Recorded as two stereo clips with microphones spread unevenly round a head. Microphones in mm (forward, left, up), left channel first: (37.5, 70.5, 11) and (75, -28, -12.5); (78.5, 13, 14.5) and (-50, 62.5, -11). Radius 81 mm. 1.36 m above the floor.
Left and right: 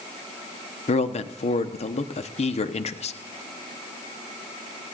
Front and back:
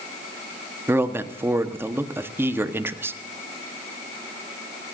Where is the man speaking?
90° left, 1.1 m.